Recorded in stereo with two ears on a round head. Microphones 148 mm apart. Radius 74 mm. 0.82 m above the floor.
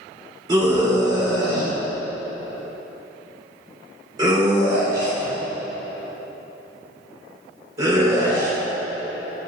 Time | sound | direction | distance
0.5 | a scream | 25° right (ahead or behind) | 3.5 m